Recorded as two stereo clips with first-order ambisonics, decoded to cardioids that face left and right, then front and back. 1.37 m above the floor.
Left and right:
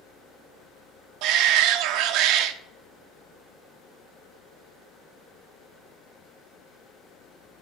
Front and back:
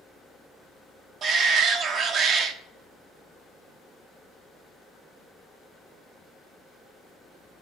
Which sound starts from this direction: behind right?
A shout, at 1.2 s.